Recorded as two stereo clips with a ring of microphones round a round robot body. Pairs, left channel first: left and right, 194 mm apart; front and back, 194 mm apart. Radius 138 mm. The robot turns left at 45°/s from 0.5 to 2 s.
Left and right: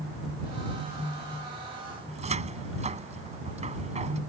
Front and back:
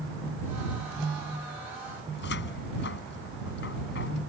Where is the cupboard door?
35° right.